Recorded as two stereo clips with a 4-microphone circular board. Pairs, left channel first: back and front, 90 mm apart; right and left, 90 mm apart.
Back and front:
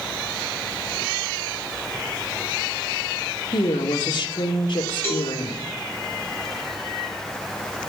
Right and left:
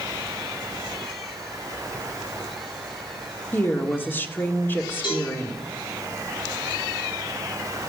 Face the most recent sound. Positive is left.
turn(degrees=-120)